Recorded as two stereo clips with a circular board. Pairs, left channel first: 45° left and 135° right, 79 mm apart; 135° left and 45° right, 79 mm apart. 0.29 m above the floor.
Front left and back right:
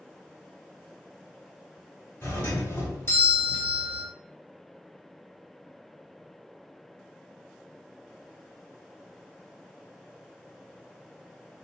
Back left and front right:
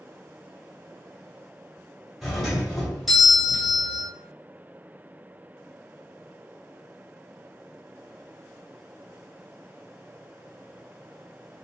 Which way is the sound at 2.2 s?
45° left.